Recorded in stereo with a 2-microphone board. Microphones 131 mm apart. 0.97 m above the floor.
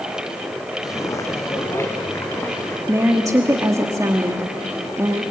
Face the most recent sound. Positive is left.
turn(degrees=-25)  # may be behind; listen again after turning